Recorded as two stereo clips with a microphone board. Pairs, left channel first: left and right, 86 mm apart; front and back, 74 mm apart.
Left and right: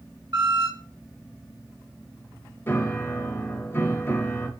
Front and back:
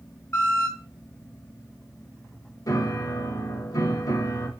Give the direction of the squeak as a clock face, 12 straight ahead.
2 o'clock.